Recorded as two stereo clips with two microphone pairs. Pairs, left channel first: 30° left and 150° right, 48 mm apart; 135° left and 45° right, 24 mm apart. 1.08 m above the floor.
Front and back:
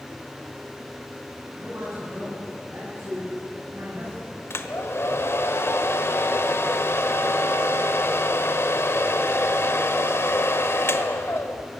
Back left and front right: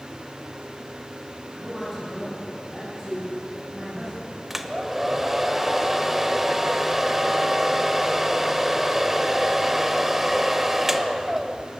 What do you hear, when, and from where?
1.5 s a man speaking: 110° right, 9 m; by 4.4 s 115° right, 7 m
4.5 s a hair dryer: 30° left, 1.3 m